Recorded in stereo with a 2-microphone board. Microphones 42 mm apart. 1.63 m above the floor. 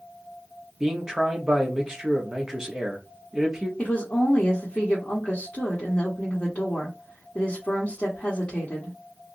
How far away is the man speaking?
About 0.9 m.